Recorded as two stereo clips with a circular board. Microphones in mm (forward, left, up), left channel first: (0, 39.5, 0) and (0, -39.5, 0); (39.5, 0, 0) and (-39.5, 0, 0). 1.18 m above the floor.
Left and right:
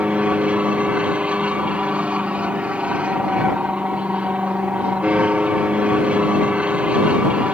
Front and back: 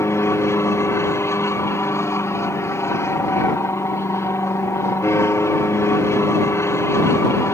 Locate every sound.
0.0 s an aircraft: 25° right